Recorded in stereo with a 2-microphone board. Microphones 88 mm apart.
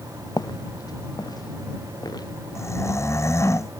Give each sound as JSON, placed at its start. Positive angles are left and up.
{"t": 0.4, "sound": "footsteps", "side_deg": 50}
{"t": 2.5, "sound": "snoring", "side_deg": 30}